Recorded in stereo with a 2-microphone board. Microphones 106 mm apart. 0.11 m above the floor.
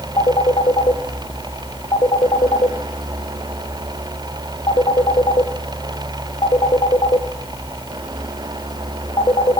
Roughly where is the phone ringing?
Left.